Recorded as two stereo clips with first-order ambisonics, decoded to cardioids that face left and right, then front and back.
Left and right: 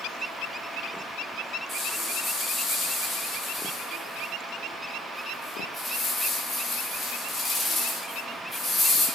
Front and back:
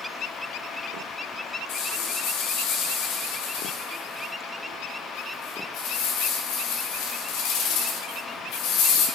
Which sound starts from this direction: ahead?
A rattle, at 1.7 s.